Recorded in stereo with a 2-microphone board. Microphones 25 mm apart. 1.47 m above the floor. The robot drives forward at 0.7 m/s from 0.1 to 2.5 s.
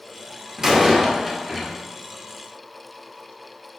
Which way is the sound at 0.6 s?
25° right (ahead or behind).